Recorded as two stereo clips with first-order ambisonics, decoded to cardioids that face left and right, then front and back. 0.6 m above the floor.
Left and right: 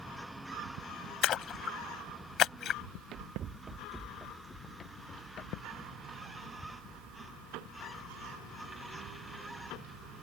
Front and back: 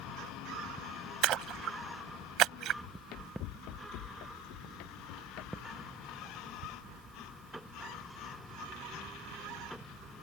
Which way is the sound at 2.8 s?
45° right.